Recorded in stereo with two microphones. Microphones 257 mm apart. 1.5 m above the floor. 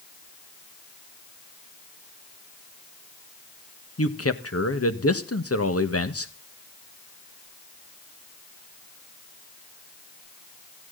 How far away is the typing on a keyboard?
I don't hear typing on a keyboard.